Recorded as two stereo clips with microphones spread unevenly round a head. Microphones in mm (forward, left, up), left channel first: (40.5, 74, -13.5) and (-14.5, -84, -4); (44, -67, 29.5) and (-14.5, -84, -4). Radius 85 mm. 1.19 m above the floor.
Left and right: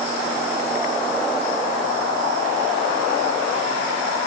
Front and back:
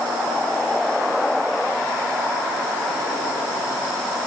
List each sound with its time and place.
Only background noise.